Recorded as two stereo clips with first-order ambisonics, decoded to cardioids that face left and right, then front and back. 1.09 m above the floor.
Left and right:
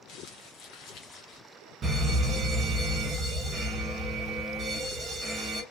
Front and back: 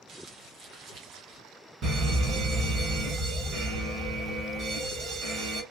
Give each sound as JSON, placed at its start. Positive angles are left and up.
{"t": 0.1, "sound": "crumpling", "azimuth_deg": 125, "distance_m": 1.1}
{"t": 1.8, "sound": "a fire alarm", "azimuth_deg": -140, "distance_m": 1.3}